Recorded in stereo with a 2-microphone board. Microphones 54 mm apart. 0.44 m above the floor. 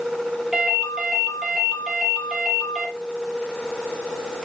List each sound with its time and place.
0.5 s a ringtone: 10° right (ahead or behind), 6 m